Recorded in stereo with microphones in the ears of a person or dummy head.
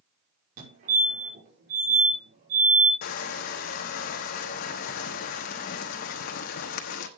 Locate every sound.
0.6 s a fire alarm: 45° right (ahead or behind), 5.5 m
3.0 s crushing: 50° left (ahead or behind), 1.1 m